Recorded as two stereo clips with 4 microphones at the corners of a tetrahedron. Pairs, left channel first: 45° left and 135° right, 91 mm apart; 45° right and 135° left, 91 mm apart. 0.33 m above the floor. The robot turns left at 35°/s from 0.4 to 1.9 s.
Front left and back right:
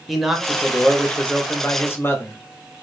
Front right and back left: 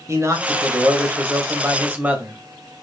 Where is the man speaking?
135° left, 1.0 m; by 2.4 s 85° left, 1.0 m.